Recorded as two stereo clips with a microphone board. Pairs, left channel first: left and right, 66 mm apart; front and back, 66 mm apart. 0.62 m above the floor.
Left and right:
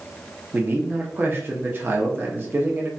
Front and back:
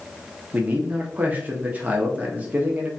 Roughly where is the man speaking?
Behind right.